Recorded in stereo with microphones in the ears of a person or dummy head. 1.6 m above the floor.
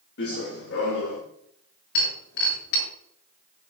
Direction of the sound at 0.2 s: 60° left (ahead or behind).